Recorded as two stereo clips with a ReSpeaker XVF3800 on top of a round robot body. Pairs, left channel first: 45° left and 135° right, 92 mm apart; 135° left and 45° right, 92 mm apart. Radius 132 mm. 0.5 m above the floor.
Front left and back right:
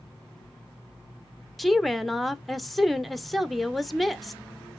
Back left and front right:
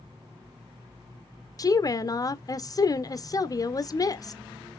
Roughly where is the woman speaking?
Behind left.